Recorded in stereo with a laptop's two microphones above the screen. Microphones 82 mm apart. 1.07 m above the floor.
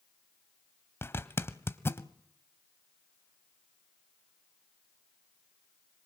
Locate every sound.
1.0 s a zipper: 30° left (ahead or behind), 1.0 m